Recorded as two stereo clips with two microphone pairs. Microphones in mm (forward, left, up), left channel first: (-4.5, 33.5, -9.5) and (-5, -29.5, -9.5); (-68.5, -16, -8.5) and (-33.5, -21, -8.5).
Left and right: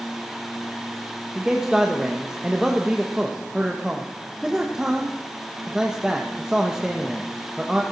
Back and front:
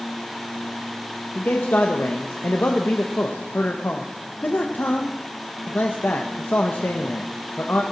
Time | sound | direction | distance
1.4 | a man speaking | 170° right | 1.4 m